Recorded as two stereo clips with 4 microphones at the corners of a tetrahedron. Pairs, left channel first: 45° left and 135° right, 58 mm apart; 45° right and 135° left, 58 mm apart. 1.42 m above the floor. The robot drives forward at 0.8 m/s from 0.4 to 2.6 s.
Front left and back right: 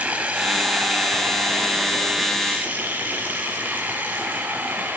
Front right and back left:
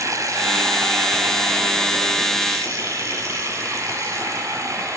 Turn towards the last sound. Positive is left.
turn(degrees=165)